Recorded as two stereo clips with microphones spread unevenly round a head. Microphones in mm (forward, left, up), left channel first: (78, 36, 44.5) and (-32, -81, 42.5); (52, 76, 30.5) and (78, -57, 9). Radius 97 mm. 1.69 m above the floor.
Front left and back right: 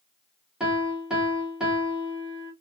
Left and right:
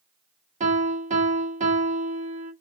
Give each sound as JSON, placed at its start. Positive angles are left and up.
{"t": 0.6, "sound": "a piano", "azimuth_deg": -45, "distance_m": 1.3}